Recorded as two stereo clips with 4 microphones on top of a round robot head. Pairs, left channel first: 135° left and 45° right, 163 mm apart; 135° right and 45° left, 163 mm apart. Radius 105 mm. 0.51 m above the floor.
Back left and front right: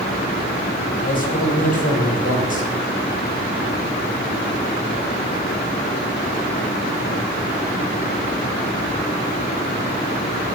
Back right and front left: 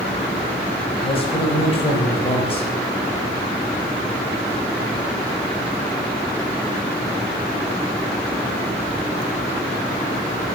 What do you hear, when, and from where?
1.0 s a man speaking: 170° left, 4 m